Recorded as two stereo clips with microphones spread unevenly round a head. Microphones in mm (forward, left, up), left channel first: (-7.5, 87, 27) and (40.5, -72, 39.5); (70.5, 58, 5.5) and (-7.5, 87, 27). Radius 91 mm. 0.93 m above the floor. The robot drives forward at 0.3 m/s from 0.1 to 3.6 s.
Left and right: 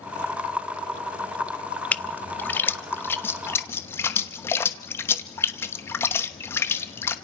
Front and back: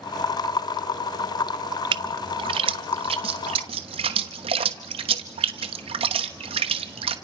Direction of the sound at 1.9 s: 175° right.